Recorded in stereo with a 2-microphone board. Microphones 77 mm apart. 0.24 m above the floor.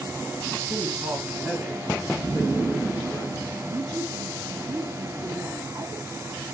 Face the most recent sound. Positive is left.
turn(degrees=-55)  # may be behind; listen again after turning